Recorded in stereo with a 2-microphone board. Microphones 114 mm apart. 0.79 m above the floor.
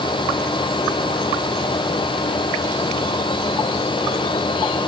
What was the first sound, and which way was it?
Only background noise.